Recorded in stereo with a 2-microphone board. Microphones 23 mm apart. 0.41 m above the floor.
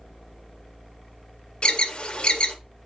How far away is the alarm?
About 0.8 m.